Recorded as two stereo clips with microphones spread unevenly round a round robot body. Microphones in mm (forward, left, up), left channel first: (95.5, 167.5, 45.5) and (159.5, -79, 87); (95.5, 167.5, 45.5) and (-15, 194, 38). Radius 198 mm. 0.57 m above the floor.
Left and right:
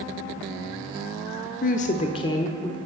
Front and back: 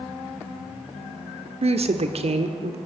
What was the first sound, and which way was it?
A woman speaking, 155° left.